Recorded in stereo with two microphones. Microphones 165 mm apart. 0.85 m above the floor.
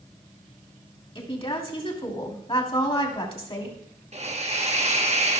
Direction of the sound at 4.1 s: 45° right (ahead or behind).